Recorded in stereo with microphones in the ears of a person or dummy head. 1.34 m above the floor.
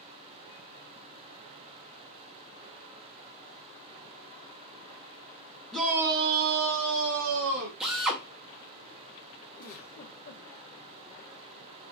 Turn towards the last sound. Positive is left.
turn(degrees=50)  # may be behind; listen again after turning